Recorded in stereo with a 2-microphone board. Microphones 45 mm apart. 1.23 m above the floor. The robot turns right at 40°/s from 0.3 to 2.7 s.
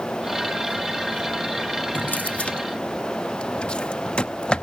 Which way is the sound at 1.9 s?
40° left (ahead or behind).